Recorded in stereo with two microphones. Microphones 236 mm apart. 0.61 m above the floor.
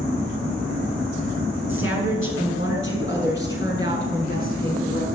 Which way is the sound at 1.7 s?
60° left (ahead or behind).